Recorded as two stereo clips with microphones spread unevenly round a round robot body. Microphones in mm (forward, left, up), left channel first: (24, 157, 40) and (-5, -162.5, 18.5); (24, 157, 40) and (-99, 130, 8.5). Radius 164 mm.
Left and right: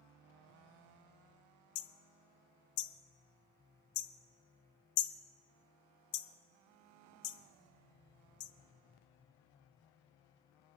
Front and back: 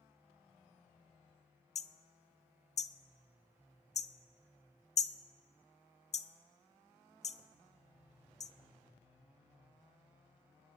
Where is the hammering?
50° left, 0.6 m.